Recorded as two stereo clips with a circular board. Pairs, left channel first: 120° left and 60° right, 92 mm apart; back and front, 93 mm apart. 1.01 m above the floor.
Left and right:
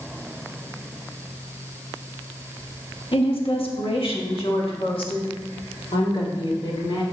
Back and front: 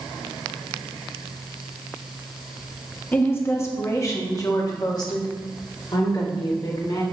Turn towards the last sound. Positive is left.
turn(degrees=145)